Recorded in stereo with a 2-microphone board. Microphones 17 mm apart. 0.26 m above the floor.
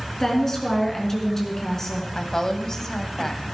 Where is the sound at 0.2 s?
30° left (ahead or behind), 3.5 m.